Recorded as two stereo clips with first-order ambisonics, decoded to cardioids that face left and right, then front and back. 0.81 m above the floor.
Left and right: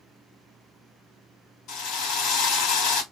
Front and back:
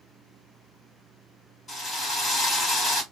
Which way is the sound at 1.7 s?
60° left.